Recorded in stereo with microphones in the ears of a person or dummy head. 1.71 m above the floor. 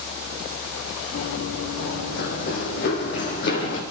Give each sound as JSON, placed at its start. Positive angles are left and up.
{"t": 1.1, "sound": "running footsteps", "side_deg": 55, "distance_m": 3.5}